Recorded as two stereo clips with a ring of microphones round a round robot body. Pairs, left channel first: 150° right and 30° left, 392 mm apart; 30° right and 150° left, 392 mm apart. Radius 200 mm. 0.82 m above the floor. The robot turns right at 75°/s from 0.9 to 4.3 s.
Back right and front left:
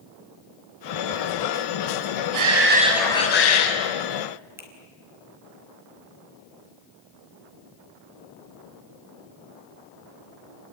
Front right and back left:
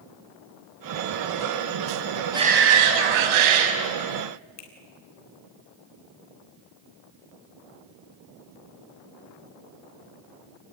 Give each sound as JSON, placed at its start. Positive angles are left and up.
{"t": 2.3, "sound": "a shout", "azimuth_deg": 70, "distance_m": 6.0}
{"t": 4.6, "sound": "a finger snap", "azimuth_deg": -55, "distance_m": 4.0}